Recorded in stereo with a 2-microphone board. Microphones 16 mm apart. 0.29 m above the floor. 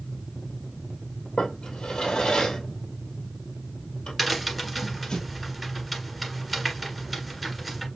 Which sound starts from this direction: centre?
A crack, at 4.2 s.